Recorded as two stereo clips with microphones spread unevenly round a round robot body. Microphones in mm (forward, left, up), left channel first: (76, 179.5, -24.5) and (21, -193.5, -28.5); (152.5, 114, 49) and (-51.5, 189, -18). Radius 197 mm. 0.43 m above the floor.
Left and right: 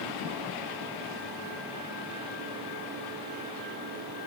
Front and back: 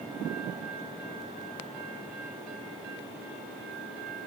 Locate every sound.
Only background noise.